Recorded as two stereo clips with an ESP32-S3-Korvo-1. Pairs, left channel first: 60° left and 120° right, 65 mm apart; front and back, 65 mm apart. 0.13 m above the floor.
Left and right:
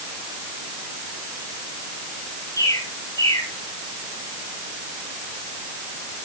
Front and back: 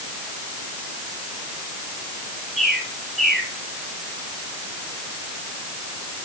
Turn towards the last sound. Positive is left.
turn(degrees=85)